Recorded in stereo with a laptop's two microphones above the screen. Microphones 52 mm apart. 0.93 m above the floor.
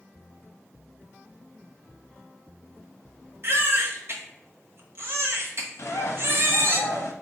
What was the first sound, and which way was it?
A baby crying, 50° right (ahead or behind).